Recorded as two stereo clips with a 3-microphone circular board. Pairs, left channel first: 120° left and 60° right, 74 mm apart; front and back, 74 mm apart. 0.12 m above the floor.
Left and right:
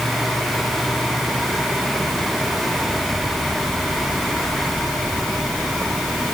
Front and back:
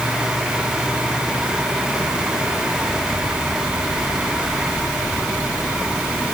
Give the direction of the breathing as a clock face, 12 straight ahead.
No breathing in this recording.